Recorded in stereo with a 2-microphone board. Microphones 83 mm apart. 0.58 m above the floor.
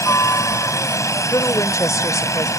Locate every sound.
0.0 s a helicopter: 40° left (ahead or behind)
1.3 s a woman speaking: 40° left (ahead or behind)